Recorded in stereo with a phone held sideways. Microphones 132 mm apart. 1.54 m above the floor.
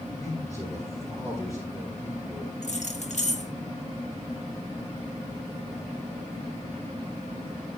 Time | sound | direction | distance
0.2 | a man speaking | 25° left (ahead or behind) | 9 m
2.6 | keys jangling | 60° left (ahead or behind) | 1.6 m